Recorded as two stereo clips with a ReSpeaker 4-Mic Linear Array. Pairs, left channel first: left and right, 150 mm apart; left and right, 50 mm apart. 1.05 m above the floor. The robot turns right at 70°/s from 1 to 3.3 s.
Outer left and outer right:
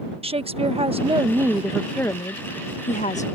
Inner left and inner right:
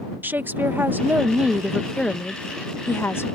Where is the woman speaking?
55° right; by 3.2 s 105° left.